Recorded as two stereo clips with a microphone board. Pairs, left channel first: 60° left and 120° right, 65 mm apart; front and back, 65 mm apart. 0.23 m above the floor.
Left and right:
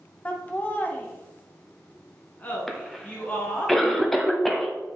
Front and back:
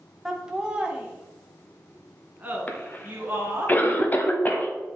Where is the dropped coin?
I don't hear a dropped coin.